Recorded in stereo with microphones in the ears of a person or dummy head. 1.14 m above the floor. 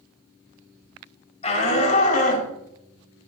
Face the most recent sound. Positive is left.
turn(degrees=50)  # may be behind; listen again after turning